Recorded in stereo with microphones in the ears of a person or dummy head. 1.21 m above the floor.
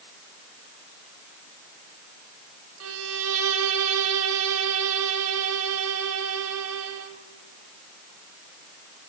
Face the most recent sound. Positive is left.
turn(degrees=-75)  # may be behind; listen again after turning